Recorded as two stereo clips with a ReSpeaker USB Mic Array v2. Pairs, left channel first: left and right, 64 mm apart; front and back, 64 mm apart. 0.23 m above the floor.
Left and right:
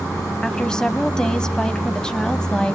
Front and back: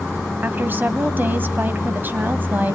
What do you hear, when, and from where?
0.4 s a woman speaking: 160° left, 1.4 m